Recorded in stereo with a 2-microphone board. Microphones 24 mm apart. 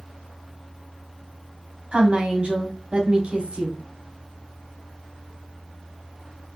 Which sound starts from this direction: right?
A woman speaking, at 1.9 s.